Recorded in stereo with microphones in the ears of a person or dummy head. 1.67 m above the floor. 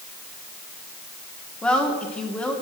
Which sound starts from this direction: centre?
A woman speaking, at 1.6 s.